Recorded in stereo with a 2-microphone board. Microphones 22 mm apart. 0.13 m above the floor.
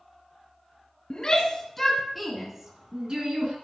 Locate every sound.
1.1 s a shout: 35° left (ahead or behind), 2 m; by 3.5 s 45° right (ahead or behind), 2 m